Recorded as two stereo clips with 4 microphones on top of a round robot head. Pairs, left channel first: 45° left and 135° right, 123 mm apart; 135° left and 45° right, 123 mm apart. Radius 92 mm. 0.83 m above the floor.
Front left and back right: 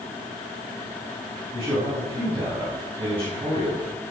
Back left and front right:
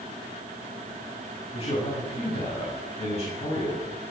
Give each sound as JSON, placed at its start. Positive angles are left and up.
{"t": 1.5, "sound": "a man speaking", "azimuth_deg": 175, "distance_m": 7.0}